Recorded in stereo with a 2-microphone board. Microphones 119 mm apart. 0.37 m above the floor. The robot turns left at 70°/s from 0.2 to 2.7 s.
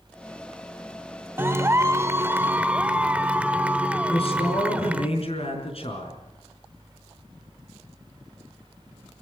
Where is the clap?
20° right (ahead or behind), 0.8 m; by 5.1 s 10° right (ahead or behind), 0.8 m.